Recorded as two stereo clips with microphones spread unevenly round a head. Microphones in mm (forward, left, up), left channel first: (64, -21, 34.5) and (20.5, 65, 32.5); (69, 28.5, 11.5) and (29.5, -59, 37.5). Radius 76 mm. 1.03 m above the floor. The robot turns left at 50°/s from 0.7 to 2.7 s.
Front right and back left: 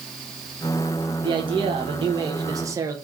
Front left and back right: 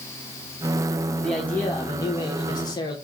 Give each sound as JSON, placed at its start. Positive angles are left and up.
{"t": 1.2, "sound": "a man speaking", "azimuth_deg": 140, "distance_m": 0.9}